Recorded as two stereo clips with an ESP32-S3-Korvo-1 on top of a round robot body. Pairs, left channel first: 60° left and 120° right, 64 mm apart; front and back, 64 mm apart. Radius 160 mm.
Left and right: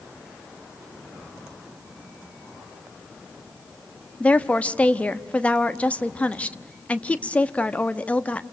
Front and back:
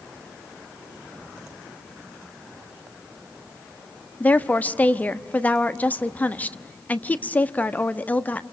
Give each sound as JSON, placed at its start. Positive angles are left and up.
{"t": 4.2, "sound": "a woman speaking", "azimuth_deg": 20, "distance_m": 1.3}